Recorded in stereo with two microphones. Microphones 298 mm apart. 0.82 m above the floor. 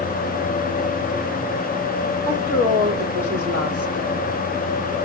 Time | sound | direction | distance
2.2 | a woman speaking | 50° right (ahead or behind) | 1.7 m